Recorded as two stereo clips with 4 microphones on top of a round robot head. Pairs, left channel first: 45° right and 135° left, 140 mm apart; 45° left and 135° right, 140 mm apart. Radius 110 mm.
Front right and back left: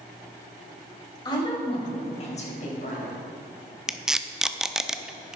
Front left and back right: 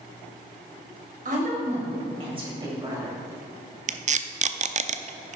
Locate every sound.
1.2 s a woman speaking: 105° right, 3.5 m; by 3.2 s 65° right, 4 m
3.9 s tape being pulled: 140° right, 0.6 m